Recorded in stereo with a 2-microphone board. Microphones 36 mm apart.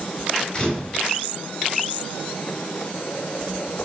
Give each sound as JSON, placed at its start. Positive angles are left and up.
{"t": 0.5, "sound": "a camera shutter", "side_deg": 30, "distance_m": 2.5}